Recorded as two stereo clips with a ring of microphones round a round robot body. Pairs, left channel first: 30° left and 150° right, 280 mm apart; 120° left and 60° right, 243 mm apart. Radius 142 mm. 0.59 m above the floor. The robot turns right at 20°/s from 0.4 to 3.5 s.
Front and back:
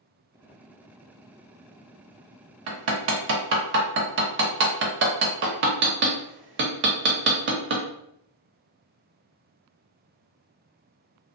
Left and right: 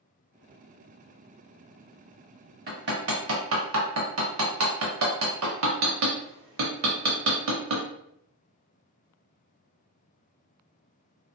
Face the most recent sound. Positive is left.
turn(degrees=-100)